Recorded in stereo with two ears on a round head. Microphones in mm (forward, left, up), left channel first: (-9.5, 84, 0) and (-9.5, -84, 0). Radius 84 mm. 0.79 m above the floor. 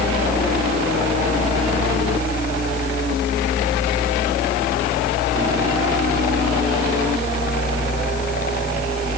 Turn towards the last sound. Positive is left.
No sound to turn to.